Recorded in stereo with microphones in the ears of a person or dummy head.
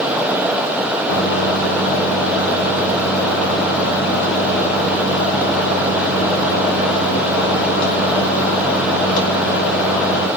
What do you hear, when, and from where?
1.1 s a microwave: 80° left, 2.5 m